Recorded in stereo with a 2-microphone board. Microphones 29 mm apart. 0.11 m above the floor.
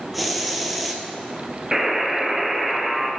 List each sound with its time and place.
0.1 s a hiss: centre (ahead or behind), 0.7 m
1.7 s a buzzer: 10° right (ahead or behind), 0.8 m